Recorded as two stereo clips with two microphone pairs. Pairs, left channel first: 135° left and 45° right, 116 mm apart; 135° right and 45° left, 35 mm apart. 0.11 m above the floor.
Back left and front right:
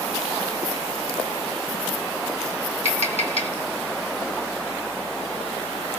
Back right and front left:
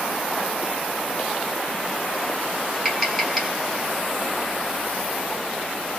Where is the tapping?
130° left, 2.5 m.